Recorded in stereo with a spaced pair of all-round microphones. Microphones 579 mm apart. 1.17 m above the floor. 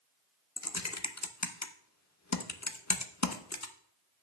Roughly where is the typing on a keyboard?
Left.